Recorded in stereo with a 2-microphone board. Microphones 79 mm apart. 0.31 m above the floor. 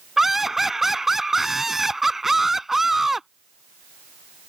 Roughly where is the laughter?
Centre.